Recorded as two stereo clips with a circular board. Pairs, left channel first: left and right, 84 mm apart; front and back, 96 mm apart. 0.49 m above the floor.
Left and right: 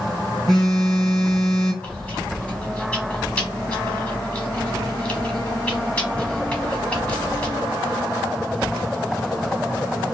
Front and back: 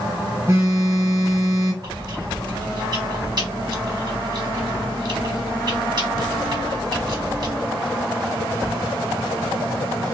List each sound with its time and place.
0.5 s a phone buzzing: 170° left, 1.4 m
1.8 s chewing: 160° left, 1.0 m